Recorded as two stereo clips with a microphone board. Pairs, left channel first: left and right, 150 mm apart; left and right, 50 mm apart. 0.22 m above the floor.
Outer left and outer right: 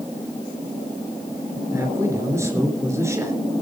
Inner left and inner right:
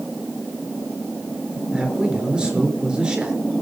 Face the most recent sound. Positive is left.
turn(degrees=-20)  # may be behind; listen again after turning